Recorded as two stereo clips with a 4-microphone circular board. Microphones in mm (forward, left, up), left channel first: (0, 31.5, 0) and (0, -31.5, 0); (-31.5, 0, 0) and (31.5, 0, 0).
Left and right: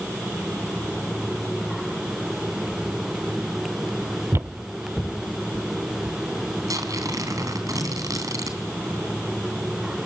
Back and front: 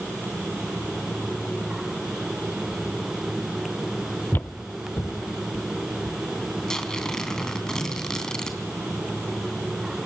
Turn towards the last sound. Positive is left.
turn(degrees=-100)